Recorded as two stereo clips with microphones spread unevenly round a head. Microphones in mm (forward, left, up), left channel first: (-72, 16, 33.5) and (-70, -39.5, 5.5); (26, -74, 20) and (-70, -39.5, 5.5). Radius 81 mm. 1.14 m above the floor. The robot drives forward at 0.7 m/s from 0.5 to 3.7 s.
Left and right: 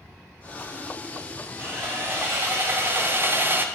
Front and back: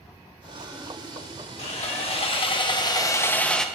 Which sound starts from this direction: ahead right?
Sawing, at 1.6 s.